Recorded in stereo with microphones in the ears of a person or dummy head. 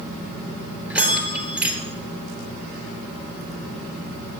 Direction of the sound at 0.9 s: 5° right (ahead or behind).